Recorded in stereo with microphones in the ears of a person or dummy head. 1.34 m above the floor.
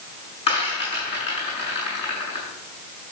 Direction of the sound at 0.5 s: 30° left (ahead or behind).